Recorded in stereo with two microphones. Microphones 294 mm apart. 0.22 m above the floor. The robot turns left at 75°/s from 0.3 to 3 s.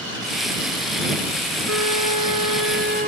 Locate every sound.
1.7 s a flute: 50° right; by 3.1 s 150° right